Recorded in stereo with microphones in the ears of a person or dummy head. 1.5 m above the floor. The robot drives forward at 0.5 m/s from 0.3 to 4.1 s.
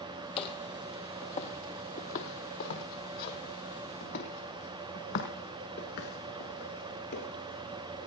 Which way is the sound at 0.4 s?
35° left (ahead or behind).